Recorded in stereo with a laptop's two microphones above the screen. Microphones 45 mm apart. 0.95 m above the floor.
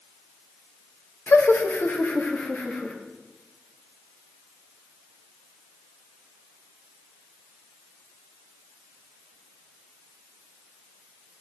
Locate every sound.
1.3 s laughter: 55° left (ahead or behind), 1.0 m; by 2.9 s 35° left (ahead or behind), 1.8 m